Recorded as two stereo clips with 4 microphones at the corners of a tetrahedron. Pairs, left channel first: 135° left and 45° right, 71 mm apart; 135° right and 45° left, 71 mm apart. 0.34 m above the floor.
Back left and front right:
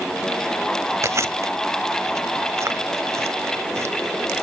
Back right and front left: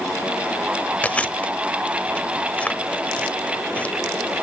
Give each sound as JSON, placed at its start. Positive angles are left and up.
{"t": 1.0, "sound": "chewing", "azimuth_deg": -70, "distance_m": 1.0}